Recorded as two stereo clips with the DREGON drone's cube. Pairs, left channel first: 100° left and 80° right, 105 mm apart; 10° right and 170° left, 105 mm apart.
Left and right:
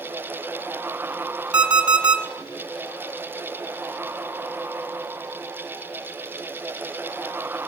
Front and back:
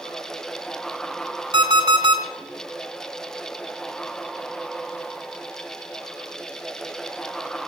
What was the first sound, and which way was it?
An alarm clock, 160° right.